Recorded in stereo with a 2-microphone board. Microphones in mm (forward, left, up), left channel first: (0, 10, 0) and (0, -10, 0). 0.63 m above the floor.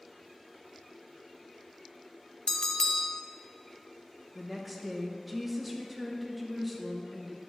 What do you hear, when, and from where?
2.5 s a bell: 30° left (ahead or behind), 0.5 m
4.3 s a woman speaking: 5° right (ahead or behind), 0.7 m